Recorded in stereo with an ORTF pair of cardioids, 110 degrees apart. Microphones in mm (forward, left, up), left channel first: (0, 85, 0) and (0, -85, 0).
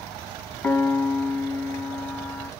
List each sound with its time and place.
0.6 s a piano: 5° left, 1.2 m